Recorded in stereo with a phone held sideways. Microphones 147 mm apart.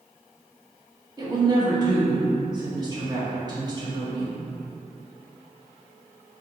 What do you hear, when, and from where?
1.2 s a woman speaking: 30° right (ahead or behind), 1.2 m